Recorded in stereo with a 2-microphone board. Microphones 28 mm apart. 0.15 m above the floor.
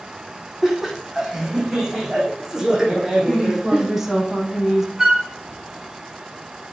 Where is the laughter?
10° right (ahead or behind), 7 m; by 3.9 s 25° right (ahead or behind), 7 m.